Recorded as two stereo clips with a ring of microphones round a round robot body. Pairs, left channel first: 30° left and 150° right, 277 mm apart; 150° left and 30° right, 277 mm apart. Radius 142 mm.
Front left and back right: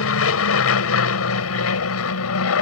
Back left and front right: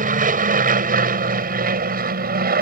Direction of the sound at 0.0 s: 25° left.